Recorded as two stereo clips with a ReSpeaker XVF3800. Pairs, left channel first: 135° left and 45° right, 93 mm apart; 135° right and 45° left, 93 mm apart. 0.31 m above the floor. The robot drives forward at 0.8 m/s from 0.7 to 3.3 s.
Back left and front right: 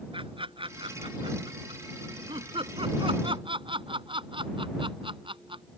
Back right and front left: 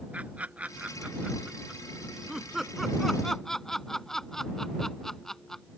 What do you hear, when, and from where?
0.1 s laughter: 30° right; by 5.6 s 50° right